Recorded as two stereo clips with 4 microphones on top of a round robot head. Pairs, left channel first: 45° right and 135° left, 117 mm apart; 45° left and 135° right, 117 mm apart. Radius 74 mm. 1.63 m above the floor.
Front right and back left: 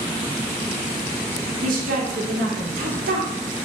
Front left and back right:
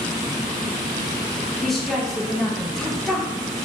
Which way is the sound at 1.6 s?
130° left.